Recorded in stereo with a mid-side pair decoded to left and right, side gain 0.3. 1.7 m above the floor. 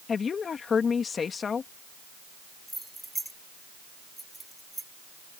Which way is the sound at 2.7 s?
15° right.